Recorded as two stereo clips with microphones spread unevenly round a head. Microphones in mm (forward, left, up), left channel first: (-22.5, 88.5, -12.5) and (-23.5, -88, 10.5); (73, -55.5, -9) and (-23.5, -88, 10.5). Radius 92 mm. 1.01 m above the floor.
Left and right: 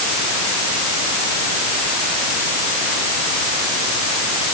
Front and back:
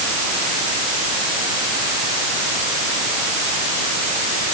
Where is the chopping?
I don't hear chopping.